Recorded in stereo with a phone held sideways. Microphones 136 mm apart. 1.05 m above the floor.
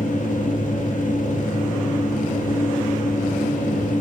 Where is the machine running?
75° left (ahead or behind), 0.9 m.